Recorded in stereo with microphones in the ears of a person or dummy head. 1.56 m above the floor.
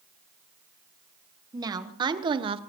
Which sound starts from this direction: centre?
A woman speaking, at 1.5 s.